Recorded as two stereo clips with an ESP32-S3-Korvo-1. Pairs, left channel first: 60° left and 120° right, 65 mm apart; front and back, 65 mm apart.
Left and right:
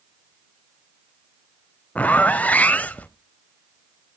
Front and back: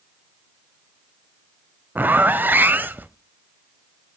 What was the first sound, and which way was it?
A zipper, 125° left.